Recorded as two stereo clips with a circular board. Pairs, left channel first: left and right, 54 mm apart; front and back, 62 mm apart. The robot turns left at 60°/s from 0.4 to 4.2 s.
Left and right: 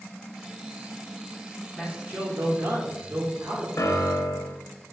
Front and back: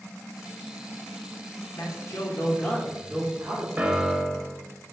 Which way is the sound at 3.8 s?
115° left.